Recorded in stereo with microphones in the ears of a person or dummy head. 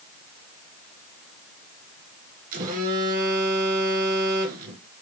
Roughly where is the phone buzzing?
Right.